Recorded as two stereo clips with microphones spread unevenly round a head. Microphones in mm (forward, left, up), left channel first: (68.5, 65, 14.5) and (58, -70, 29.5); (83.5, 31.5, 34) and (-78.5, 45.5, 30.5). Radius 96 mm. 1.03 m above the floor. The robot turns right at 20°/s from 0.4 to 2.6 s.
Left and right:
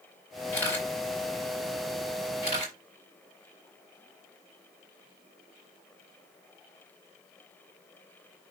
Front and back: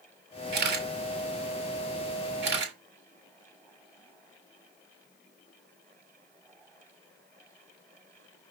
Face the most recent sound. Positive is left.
turn(degrees=-155)